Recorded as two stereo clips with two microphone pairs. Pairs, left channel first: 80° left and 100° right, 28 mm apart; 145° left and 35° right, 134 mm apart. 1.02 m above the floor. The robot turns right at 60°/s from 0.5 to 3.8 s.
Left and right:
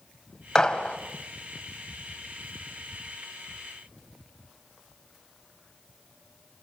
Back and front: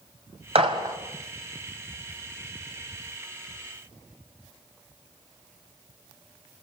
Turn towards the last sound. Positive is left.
turn(degrees=-160)